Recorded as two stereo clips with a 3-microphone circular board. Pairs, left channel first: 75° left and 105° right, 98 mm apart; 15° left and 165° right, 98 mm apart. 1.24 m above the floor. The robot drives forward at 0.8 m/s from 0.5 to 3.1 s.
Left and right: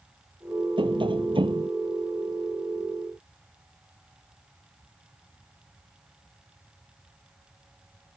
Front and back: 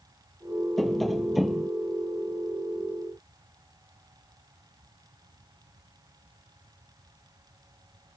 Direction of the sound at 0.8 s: 75° right.